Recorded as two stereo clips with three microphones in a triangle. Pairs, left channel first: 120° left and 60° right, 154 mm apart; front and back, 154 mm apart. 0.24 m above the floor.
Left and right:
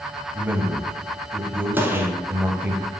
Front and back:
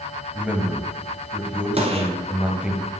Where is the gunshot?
135° right, 1.2 m.